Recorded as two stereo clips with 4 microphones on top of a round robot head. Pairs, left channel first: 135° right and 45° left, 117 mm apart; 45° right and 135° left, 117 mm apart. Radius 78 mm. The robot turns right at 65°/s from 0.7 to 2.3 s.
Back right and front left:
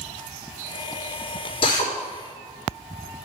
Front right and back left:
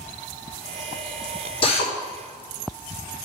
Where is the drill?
90° right, 2.5 m; by 1.9 s 70° right, 2.5 m.